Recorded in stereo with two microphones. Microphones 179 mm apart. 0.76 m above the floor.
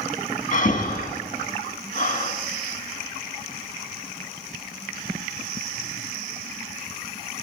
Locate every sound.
0.5 s breathing: 50° left (ahead or behind), 1.4 m